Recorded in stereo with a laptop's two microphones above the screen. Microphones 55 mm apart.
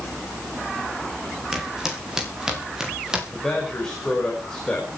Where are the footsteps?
10° right (ahead or behind), 7.5 m.